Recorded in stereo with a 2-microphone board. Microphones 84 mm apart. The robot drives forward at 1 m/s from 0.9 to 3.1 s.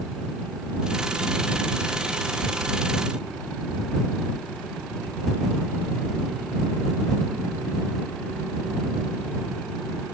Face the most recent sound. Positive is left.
No sound to turn to.